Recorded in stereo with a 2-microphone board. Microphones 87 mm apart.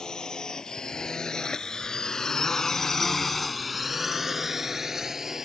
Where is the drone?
5° left (ahead or behind); by 5.5 s 5° right (ahead or behind).